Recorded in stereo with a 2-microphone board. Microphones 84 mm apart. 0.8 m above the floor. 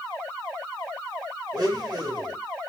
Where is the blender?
55° right (ahead or behind), 1.3 m.